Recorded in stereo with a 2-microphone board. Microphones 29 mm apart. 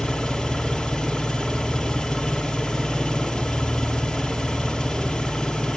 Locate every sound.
0.0 s an engine running: 10° left (ahead or behind), 3.5 m